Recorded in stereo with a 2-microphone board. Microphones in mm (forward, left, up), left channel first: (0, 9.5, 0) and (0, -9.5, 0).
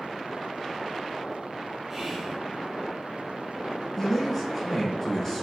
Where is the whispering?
25° right (ahead or behind), 1.9 m.